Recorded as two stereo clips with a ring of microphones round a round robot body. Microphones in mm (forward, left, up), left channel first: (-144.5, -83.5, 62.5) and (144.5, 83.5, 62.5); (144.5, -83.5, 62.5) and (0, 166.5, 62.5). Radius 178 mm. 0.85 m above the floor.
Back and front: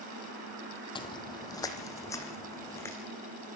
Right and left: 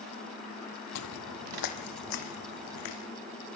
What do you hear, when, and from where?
0.9 s footsteps: 75° right, 1.2 m; by 3.0 s 65° right, 3.5 m